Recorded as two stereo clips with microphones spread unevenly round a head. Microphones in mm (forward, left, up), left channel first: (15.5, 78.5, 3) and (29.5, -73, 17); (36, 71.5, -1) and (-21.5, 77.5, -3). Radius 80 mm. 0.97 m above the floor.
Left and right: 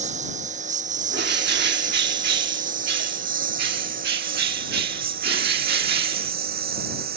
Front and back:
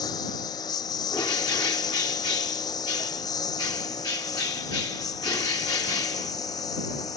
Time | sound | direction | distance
0.0 | a lawn mower | 45° right | ?
1.1 | a bird | 65° right | ?